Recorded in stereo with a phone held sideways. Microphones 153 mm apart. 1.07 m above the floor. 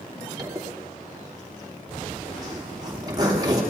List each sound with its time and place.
0.4 s a zipper: 25° right (ahead or behind), 3 m